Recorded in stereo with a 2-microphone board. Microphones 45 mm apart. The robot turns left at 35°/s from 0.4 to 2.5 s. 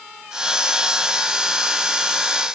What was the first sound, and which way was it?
Only background noise.